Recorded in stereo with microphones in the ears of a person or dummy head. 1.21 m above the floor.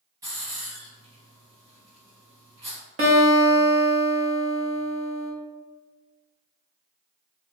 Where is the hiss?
25° right (ahead or behind), 1.7 m.